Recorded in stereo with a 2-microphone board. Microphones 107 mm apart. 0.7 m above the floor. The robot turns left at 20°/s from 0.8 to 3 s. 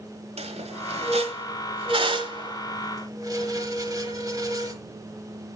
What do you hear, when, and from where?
0.4 s a squeak: 75° right (ahead or behind), 1.4 m; by 4.8 s 35° right (ahead or behind), 1.4 m